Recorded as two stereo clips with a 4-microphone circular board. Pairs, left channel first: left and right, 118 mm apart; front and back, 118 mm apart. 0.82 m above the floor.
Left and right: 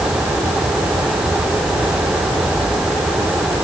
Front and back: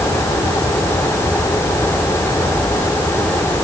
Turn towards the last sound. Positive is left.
No sound to turn to.